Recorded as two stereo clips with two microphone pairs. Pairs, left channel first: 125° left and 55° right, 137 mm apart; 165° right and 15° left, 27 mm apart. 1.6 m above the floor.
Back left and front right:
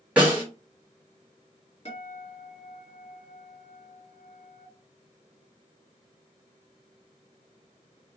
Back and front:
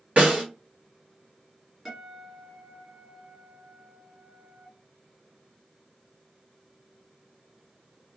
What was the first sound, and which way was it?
A snare drum, 25° left.